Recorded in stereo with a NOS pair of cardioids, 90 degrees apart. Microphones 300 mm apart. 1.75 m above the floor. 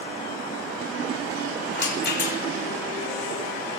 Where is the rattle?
35° left, 6.5 m.